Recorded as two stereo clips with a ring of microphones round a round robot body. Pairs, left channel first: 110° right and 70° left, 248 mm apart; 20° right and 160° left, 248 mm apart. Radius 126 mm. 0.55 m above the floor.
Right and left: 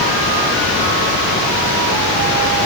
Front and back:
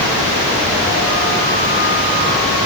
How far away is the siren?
I don't hear a siren.